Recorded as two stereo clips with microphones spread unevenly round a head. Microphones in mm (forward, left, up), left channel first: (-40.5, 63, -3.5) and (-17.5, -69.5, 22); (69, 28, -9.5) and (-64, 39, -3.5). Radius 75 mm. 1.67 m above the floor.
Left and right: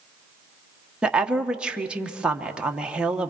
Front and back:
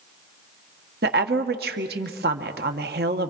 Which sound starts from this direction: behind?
A woman speaking, at 1.0 s.